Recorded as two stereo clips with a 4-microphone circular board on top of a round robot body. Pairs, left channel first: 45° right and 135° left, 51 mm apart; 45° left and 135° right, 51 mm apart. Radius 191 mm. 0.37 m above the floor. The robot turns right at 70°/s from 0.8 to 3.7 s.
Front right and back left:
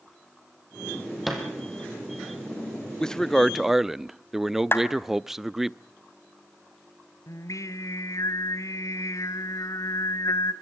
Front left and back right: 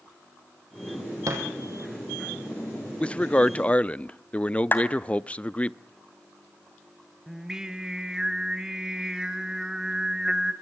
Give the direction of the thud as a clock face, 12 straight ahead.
5 o'clock.